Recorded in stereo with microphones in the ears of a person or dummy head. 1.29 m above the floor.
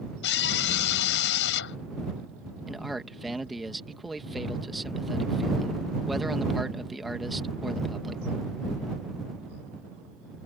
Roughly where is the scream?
Left.